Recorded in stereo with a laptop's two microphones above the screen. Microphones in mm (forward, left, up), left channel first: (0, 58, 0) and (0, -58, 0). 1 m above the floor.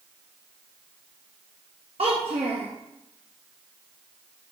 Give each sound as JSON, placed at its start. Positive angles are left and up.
{"t": 2.0, "sound": "a child speaking", "side_deg": -55, "distance_m": 1.0}